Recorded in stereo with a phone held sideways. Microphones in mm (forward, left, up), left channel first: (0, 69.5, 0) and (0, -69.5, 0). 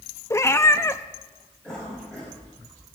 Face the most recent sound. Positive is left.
turn(degrees=10)  # may be behind; listen again after turning